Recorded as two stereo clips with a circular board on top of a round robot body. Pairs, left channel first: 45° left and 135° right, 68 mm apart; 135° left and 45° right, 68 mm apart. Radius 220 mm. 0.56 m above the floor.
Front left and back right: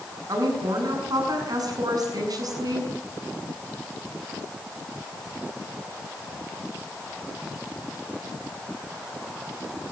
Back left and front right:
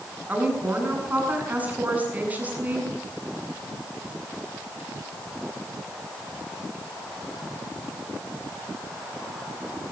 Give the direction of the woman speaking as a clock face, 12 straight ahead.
4 o'clock.